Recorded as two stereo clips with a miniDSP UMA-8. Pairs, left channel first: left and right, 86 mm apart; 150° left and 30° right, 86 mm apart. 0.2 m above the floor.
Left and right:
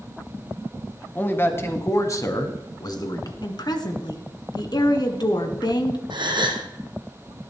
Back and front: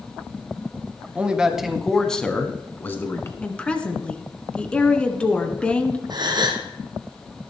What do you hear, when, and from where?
1.1 s a man speaking: 35° left, 1.4 m; by 3.3 s 100° left, 1.7 m
3.4 s a woman speaking: 75° left, 1.7 m
6.1 s a gasp: 65° right, 1.7 m